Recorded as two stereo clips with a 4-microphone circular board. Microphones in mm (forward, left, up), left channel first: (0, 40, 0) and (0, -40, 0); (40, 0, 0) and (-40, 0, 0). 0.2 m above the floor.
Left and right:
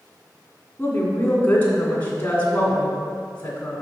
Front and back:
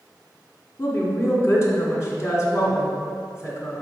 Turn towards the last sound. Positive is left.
turn(degrees=30)